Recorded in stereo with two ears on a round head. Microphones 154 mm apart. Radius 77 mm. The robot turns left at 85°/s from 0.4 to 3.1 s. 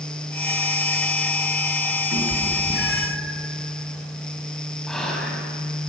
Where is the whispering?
5° left (ahead or behind), 6 m.